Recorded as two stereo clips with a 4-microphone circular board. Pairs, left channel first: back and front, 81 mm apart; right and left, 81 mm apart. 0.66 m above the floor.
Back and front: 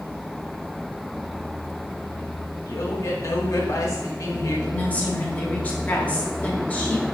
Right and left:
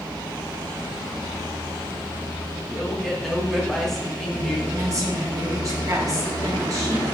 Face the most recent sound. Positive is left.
turn(degrees=115)